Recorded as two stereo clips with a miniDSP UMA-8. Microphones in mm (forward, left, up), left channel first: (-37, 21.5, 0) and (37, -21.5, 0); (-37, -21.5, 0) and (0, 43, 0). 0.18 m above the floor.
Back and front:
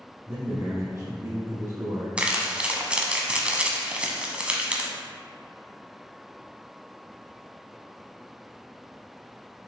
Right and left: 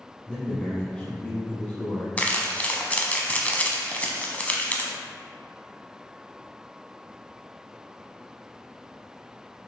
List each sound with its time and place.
0.3 s a man speaking: 55° right, 1.3 m
2.2 s crumpling: 85° right, 1.0 m